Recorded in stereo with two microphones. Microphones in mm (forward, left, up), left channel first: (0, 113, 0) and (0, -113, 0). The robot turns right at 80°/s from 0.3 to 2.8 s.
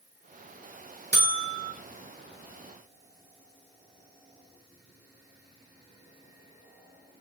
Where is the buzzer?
135° right, 2.0 m; by 1.7 s 85° right, 2.0 m.